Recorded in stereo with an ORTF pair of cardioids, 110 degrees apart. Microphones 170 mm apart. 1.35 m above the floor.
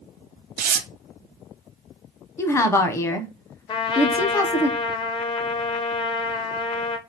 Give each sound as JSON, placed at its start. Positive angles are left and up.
{"t": 0.6, "sound": "tearing paper", "azimuth_deg": -60, "distance_m": 0.6}
{"t": 2.4, "sound": "a woman speaking", "azimuth_deg": 15, "distance_m": 0.7}
{"t": 3.7, "sound": "a trumpet", "azimuth_deg": 30, "distance_m": 0.6}